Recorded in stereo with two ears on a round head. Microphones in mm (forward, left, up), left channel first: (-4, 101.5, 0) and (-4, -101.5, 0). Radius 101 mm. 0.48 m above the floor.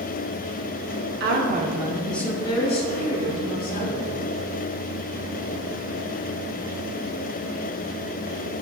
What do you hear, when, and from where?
1.2 s a woman speaking: 50° right (ahead or behind), 1.0 m; by 4.0 s 40° left (ahead or behind), 2.5 m